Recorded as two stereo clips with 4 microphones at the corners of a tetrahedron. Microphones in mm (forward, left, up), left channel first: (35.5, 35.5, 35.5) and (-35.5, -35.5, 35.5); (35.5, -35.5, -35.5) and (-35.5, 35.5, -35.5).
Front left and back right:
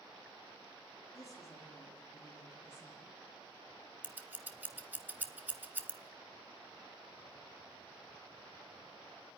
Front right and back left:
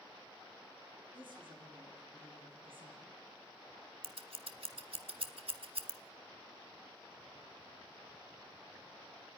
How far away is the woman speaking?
About 6 m.